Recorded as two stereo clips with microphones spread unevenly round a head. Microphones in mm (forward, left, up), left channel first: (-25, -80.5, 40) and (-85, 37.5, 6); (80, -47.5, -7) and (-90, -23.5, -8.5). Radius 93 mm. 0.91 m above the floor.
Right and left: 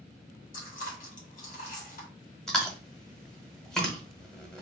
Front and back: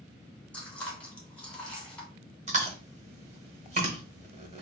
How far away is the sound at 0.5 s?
About 1.8 m.